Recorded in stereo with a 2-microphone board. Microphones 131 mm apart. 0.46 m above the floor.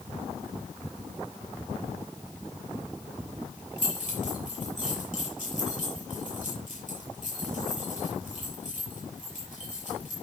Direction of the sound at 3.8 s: 60° left (ahead or behind).